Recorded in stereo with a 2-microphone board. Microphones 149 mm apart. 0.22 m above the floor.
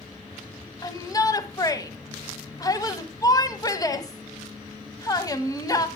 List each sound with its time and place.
0.8 s a shout: 25° left (ahead or behind), 1.2 m